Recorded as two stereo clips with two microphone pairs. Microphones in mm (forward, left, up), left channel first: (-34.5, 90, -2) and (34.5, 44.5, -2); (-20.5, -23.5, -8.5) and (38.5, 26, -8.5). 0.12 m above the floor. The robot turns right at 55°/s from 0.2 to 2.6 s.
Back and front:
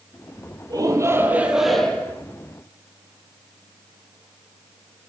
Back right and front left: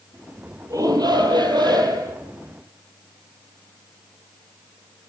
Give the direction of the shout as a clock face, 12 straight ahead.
12 o'clock.